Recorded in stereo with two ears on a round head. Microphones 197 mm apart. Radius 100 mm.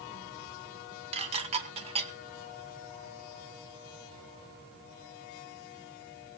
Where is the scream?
No scream in this recording.